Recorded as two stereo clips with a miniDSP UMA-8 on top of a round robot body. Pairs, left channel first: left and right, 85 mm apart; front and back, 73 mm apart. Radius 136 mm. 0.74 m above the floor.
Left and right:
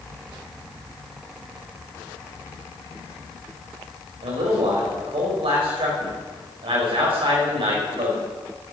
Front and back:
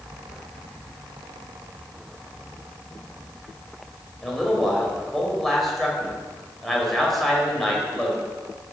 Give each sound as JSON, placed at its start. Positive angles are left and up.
{"t": 4.2, "sound": "a man speaking", "azimuth_deg": -90, "distance_m": 4.5}